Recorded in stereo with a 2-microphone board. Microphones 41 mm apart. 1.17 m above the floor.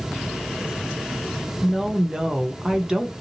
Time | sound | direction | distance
1.6 | a woman speaking | 20° right (ahead or behind) | 0.7 m